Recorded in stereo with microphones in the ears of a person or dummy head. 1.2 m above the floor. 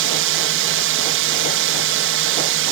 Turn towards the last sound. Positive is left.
turn(degrees=-60)  # may be behind; listen again after turning